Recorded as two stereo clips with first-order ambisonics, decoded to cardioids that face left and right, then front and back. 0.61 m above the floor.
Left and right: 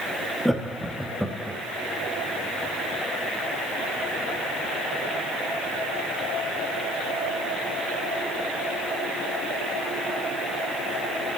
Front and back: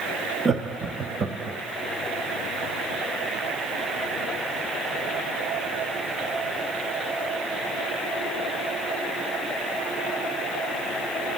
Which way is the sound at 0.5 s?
Straight behind.